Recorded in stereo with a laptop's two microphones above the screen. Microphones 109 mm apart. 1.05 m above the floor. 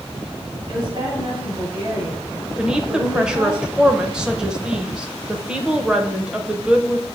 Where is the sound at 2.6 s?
10° right (ahead or behind), 0.7 m.